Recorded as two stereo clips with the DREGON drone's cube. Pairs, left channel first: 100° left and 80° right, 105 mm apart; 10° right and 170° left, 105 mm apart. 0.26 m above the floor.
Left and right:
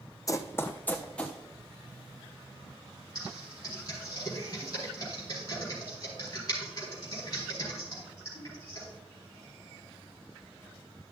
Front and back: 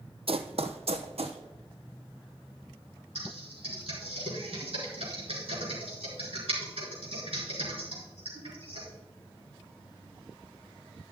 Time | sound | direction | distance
0.3 | running footsteps | 155° left | 0.7 m
3.1 | typing on a keyboard | 155° left | 4 m